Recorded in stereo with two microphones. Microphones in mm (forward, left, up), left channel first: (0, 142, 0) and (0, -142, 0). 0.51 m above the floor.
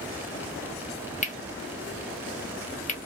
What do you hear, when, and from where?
1.2 s cutlery clinking: 25° left (ahead or behind), 0.8 m